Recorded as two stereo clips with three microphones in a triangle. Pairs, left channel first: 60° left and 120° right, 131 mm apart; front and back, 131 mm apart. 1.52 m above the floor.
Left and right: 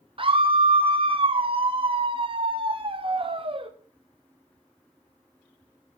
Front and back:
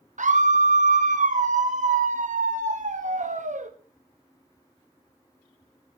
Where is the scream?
165° right, 0.9 m.